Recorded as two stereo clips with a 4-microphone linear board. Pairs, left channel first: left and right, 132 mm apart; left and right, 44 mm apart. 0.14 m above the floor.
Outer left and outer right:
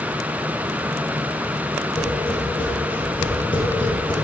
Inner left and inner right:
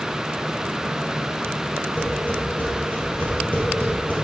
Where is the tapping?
40° left (ahead or behind), 2.5 m.